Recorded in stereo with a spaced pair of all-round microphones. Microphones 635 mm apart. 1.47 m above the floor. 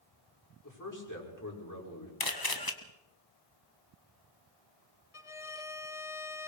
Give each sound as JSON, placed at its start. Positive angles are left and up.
{"t": 0.6, "sound": "a man speaking", "side_deg": 30, "distance_m": 6.0}
{"t": 2.2, "sound": "a camera shutter", "side_deg": 35, "distance_m": 1.5}
{"t": 5.1, "sound": "a violin", "side_deg": 55, "distance_m": 0.9}